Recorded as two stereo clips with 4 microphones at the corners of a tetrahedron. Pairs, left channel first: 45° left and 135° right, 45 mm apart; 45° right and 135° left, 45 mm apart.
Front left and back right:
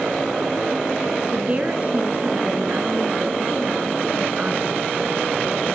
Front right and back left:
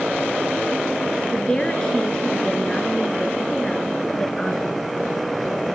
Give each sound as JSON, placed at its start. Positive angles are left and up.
{"t": 1.3, "sound": "a woman speaking", "azimuth_deg": -105, "distance_m": 1.3}